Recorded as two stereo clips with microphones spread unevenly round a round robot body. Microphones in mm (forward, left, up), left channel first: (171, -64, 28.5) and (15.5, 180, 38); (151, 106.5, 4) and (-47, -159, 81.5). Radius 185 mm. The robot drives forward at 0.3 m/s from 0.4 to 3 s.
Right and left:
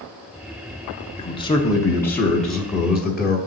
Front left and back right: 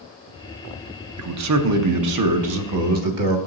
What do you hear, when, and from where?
1.2 s a man speaking: 105° right, 0.8 m; by 3.4 s 150° right, 1.0 m